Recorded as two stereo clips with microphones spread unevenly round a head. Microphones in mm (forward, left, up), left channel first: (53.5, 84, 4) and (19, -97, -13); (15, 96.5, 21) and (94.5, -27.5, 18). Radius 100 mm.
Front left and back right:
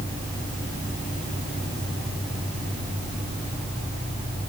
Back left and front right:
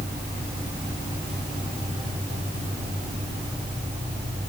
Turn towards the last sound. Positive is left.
No sound to turn to.